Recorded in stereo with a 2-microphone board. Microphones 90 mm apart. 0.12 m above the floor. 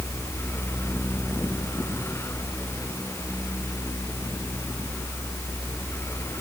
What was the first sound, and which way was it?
Only background noise.